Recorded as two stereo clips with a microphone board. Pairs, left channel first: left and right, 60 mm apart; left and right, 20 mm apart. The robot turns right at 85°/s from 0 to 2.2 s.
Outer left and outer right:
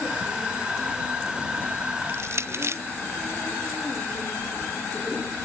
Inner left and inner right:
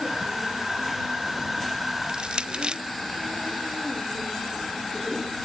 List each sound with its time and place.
2.1 s crushing: 40° right (ahead or behind); by 2.8 s 50° right (ahead or behind)